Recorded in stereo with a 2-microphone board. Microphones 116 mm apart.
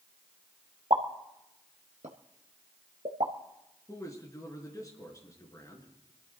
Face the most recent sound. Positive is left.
turn(degrees=30)  # may be behind; listen again after turning